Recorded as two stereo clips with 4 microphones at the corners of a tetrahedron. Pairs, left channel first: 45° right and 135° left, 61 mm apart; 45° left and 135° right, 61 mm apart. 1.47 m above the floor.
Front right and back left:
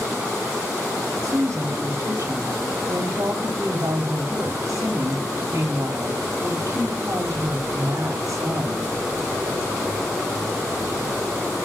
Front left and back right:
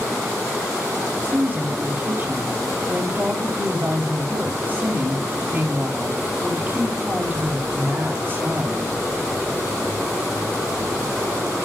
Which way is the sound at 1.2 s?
165° left.